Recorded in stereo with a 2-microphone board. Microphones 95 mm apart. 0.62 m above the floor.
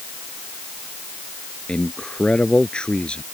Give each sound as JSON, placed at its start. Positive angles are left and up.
{"t": 1.7, "sound": "a man speaking", "side_deg": 10}